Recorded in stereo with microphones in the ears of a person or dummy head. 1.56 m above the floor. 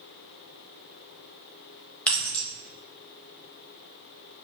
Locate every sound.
2.1 s keys jangling: 5° left (ahead or behind), 0.8 m